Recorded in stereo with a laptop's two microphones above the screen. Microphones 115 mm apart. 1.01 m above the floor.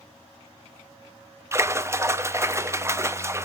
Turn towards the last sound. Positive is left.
turn(degrees=-25)  # may be behind; listen again after turning